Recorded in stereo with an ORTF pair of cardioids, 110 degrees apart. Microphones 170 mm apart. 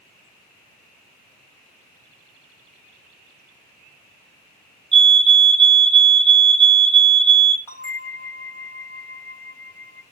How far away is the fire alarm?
About 2.5 m.